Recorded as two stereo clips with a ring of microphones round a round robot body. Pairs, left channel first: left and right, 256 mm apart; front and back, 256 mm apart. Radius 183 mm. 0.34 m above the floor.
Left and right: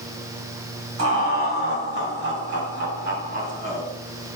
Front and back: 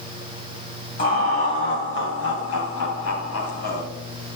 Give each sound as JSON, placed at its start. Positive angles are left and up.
{"t": 1.0, "sound": "laughter", "azimuth_deg": -60, "distance_m": 2.5}